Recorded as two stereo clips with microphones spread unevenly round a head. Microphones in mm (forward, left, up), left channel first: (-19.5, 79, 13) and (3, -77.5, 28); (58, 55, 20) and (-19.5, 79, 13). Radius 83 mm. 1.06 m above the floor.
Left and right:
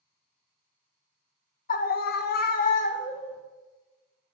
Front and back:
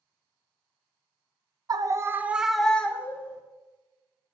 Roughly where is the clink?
I don't hear a clink.